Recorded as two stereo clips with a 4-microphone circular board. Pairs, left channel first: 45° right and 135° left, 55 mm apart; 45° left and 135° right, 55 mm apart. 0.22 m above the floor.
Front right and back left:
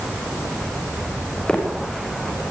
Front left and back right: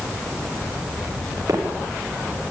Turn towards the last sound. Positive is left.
turn(degrees=-120)